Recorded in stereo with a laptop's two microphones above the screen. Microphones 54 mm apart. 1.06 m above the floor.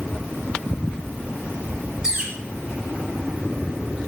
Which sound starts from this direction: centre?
A bird, at 2.0 s.